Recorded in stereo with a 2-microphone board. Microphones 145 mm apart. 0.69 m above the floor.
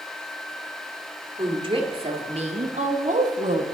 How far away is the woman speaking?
About 1.7 m.